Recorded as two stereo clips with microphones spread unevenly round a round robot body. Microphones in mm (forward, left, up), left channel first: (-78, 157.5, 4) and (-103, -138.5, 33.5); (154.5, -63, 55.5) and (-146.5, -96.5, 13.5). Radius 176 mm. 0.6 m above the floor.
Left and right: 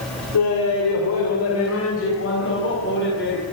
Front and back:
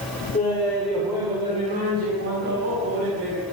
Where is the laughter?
80° left, 2.5 m; by 3.4 s 140° left, 5 m.